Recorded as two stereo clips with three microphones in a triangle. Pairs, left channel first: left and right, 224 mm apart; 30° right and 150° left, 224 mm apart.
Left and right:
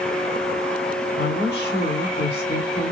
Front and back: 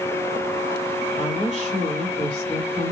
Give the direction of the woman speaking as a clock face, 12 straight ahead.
8 o'clock.